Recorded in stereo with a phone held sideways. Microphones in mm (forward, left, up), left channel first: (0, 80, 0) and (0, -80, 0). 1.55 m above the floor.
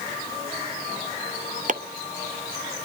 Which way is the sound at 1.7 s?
50° right (ahead or behind).